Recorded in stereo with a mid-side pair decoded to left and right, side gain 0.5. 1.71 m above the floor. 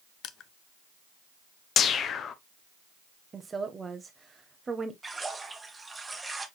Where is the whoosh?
55° left, 0.7 m.